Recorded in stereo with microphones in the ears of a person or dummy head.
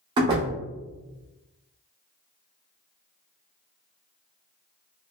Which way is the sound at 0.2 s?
25° right (ahead or behind).